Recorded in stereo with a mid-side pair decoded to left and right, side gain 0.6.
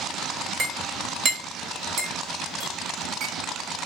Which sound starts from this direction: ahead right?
A clink, at 0.6 s.